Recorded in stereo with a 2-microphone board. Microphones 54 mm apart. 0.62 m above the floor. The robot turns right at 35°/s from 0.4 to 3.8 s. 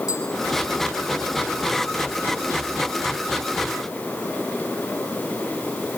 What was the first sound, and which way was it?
Tapping, 85° left.